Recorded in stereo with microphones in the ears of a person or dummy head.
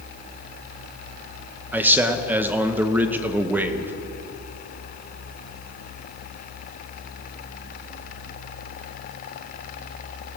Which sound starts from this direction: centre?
A man speaking, at 1.7 s.